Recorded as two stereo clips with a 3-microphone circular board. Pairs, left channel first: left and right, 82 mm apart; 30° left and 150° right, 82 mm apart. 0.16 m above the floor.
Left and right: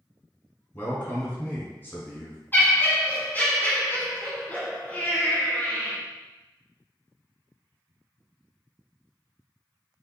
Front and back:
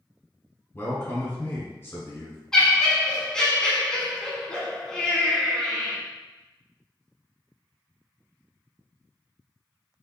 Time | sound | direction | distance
0.7 | a man speaking | 55° left | 1.3 m
2.5 | laughter | 100° left | 1.1 m